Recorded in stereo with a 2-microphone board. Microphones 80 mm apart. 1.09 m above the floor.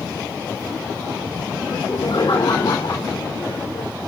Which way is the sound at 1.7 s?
70° left (ahead or behind).